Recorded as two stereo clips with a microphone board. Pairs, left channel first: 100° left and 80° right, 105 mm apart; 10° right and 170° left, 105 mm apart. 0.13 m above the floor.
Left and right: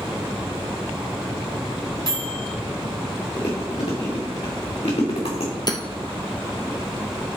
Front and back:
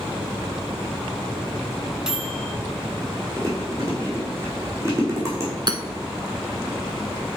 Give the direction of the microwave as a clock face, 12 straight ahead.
9 o'clock.